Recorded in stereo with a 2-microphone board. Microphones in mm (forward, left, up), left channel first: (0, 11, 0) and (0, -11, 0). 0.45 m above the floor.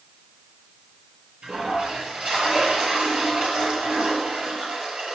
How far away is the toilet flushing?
About 7.5 m.